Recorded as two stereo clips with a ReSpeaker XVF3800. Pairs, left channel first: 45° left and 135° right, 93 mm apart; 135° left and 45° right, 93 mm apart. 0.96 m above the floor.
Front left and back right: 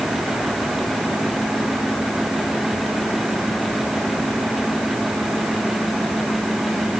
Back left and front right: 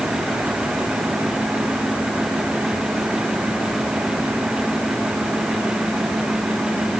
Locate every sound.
Only background noise.